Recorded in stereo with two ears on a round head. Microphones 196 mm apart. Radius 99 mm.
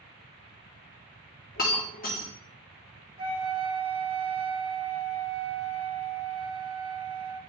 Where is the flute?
25° right (ahead or behind), 1.5 m.